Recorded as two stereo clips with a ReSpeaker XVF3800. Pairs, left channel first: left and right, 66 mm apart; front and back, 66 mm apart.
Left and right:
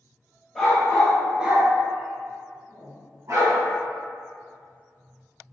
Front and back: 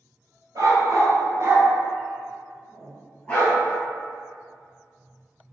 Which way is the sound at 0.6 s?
175° left.